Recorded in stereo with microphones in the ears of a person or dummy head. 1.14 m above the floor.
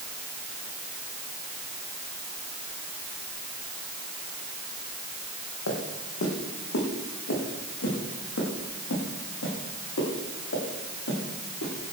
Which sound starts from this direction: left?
Footsteps, at 5.7 s.